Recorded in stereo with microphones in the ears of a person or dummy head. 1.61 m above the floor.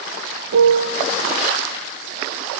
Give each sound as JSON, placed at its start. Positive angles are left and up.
{"t": 0.5, "sound": "a piano", "side_deg": -65, "distance_m": 1.3}